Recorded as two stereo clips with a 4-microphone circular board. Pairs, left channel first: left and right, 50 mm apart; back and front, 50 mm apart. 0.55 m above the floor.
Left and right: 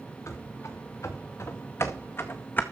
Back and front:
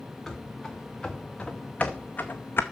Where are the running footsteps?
95° left, 3.5 m; by 2.6 s 140° left, 1.7 m.